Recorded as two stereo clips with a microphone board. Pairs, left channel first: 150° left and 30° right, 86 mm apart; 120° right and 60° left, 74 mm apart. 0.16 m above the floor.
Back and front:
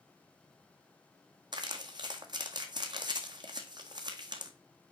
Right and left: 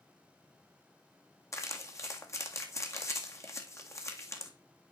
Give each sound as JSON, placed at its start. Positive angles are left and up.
{"t": 1.5, "sound": "crumpling", "azimuth_deg": -70, "distance_m": 1.9}